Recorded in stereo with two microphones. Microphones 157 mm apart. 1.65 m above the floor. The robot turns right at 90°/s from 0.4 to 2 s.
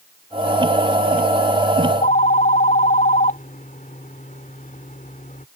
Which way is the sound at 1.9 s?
50° left (ahead or behind).